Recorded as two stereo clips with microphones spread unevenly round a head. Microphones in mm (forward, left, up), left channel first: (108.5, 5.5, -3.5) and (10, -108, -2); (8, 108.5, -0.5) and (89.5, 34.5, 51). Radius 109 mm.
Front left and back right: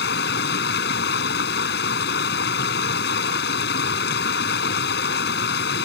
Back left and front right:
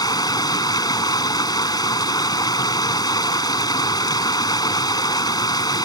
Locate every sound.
0.0 s running water: 80° left